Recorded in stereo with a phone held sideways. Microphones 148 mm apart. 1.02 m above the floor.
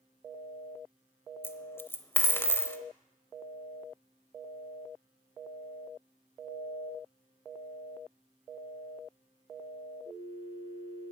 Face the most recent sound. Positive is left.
turn(degrees=15)  # may be behind; listen again after turning